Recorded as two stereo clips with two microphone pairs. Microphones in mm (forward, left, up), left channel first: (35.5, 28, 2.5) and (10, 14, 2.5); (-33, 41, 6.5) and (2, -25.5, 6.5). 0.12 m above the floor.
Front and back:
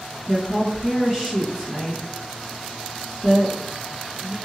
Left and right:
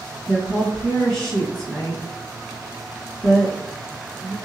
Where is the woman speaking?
170° right, 1.9 m.